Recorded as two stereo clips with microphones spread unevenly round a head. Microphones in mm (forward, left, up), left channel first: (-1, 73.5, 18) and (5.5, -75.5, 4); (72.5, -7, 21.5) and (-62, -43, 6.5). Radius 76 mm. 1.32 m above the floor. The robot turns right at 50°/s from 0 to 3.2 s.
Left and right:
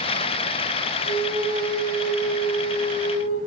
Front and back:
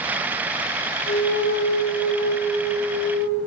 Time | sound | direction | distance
1.1 | a flute | 30° right | 2.5 m